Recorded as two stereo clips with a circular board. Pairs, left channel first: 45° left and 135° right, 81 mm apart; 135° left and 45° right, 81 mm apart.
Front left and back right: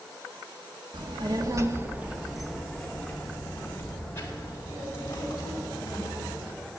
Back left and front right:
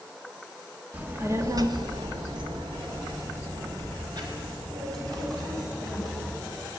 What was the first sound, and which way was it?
A child speaking, 115° right.